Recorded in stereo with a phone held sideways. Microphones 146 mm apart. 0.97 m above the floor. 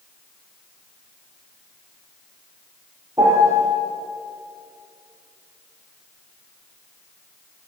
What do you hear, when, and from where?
3.2 s a piano: 25° right (ahead or behind), 8 m